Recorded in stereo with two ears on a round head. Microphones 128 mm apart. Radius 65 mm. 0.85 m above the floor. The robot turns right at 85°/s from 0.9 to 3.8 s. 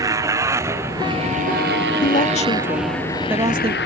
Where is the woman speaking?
90° left; by 3.8 s 125° right.